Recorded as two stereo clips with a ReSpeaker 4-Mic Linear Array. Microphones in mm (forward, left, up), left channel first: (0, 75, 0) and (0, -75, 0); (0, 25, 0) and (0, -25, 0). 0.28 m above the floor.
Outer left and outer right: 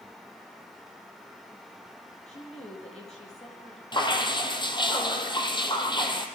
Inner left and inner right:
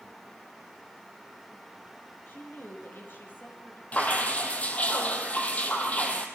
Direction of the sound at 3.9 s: 35° left (ahead or behind).